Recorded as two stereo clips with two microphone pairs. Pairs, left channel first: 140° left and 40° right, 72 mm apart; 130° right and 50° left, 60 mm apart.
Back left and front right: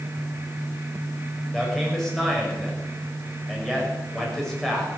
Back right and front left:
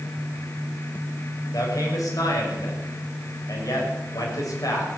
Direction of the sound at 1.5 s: 135° right.